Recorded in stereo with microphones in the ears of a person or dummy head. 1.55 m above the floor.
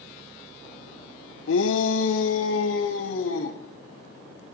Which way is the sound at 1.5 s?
75° left (ahead or behind).